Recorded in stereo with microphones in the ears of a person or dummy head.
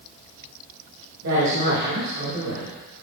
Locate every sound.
1.2 s a woman speaking: 60° right (ahead or behind), 2 m; by 2.7 s 45° right (ahead or behind), 2.5 m